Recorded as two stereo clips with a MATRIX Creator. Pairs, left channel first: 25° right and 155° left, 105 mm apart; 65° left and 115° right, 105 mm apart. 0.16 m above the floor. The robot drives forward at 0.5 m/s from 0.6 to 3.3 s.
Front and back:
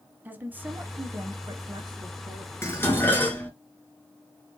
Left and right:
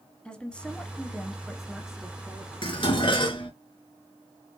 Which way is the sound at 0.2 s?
130° left.